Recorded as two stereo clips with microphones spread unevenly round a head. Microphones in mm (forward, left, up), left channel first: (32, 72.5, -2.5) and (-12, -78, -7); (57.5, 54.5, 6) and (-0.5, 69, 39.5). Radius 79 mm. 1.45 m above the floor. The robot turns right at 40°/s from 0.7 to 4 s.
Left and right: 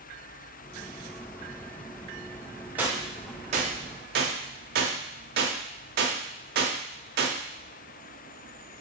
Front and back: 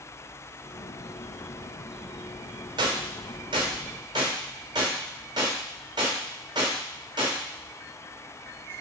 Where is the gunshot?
170° left, 0.6 m; by 7.4 s 140° right, 0.6 m.